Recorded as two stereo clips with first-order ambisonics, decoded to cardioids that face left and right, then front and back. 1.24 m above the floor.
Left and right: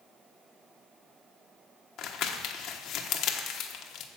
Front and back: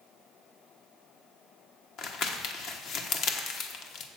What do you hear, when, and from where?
2.0 s crumpling: 45° left, 1.1 m